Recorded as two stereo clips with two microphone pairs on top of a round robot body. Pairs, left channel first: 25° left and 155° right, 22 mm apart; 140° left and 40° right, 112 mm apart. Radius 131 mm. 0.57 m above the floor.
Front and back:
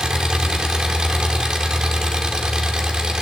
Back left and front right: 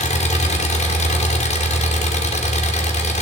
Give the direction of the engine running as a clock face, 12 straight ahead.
7 o'clock.